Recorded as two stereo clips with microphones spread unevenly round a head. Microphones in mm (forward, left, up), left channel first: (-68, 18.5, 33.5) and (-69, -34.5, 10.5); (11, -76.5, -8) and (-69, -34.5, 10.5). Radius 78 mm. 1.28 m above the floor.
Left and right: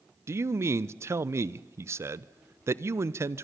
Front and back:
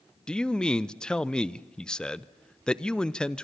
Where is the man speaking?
105° right, 0.8 m.